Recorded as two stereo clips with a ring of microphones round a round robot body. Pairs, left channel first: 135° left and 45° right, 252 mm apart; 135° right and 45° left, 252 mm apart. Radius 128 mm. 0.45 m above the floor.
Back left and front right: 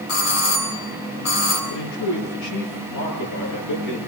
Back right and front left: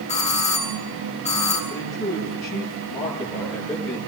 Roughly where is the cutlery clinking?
I don't hear cutlery clinking.